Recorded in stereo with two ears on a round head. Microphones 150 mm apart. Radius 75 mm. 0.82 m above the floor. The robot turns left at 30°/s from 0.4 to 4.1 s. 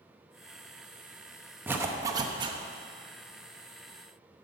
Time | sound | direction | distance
1.7 | a zipper | 10° right (ahead or behind) | 0.9 m